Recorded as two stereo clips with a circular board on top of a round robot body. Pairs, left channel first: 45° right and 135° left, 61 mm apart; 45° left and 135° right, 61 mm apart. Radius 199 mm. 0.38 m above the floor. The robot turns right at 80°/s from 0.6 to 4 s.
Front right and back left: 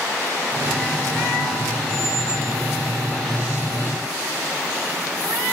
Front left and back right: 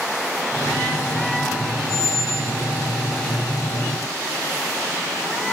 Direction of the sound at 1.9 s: 145° right.